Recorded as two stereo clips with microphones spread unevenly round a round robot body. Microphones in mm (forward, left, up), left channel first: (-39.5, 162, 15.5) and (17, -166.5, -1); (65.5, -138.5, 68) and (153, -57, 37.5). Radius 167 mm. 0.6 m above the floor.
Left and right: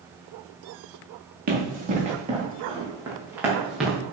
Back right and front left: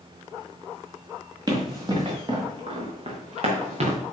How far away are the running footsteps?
About 4.5 m.